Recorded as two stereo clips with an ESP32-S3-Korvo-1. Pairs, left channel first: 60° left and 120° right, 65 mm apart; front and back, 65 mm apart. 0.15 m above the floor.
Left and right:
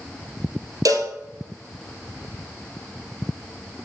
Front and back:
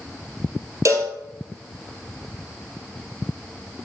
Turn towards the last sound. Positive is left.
turn(degrees=-145)